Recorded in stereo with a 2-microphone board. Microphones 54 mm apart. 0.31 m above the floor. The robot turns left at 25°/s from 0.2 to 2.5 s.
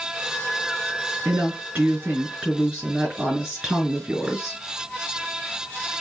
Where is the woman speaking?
130° right, 4.5 m; by 4.6 s 160° right, 4.5 m.